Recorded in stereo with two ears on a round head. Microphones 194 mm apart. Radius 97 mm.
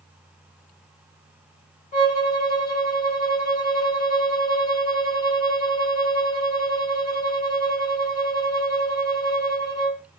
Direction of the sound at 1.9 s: 35° left (ahead or behind).